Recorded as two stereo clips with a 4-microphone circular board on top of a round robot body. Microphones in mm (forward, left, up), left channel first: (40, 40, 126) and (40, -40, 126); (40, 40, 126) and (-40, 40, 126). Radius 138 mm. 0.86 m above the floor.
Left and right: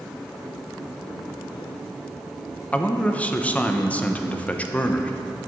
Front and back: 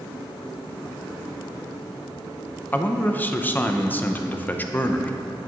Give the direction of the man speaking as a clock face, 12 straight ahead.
11 o'clock.